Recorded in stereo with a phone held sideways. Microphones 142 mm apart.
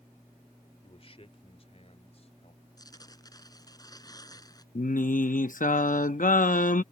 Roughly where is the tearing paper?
Left.